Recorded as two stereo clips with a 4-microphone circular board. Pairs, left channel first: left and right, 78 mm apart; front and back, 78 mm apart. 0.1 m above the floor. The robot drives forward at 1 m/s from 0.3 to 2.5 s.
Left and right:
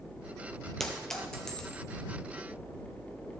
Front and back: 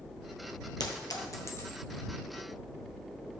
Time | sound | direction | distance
0.8 | a clink | 5° left | 1.5 m